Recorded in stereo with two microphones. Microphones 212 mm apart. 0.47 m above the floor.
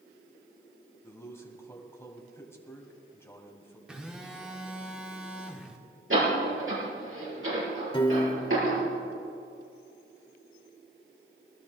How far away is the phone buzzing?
About 1.2 m.